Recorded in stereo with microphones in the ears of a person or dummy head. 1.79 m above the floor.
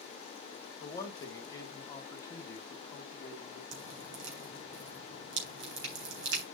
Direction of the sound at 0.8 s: 20° left (ahead or behind).